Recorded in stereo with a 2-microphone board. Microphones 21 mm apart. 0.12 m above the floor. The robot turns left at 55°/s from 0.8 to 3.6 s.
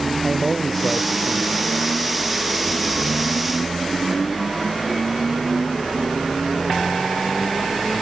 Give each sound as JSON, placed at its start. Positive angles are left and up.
{"t": 0.2, "sound": "a man speaking", "azimuth_deg": -5}